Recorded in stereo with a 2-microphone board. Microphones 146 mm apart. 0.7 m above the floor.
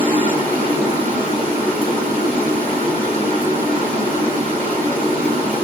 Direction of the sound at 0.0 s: 40° left (ahead or behind).